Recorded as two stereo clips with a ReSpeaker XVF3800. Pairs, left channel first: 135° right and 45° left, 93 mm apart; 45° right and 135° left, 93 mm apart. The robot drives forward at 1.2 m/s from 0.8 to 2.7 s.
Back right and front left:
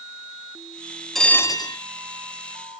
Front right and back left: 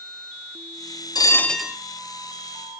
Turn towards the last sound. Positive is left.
turn(degrees=-170)